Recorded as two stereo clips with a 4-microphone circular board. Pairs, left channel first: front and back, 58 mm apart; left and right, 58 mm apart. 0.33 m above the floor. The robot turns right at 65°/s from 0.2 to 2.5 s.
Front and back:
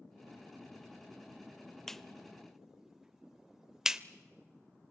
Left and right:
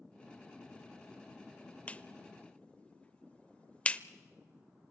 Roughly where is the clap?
Left.